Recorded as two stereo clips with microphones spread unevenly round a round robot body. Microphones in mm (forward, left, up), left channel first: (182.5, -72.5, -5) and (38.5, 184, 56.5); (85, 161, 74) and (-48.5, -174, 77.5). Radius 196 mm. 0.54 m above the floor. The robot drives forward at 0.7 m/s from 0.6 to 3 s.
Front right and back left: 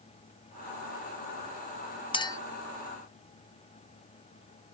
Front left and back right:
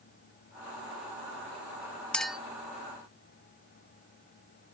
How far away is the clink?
About 0.7 m.